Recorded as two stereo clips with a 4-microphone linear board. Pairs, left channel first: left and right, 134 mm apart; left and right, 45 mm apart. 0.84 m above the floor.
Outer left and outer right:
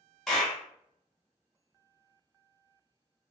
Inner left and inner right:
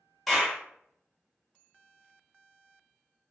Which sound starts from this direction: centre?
A clap, at 0.3 s.